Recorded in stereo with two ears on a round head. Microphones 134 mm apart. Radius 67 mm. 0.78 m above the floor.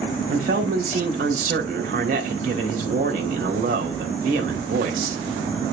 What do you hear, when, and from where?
0.3 s a man speaking: 60° right (ahead or behind), 3 m